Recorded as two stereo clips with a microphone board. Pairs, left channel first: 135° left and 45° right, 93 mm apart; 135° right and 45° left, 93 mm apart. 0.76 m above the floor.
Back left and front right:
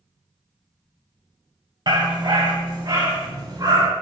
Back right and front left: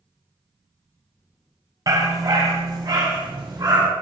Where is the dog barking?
5° right, 2.0 m; by 3.9 s straight ahead, 4 m.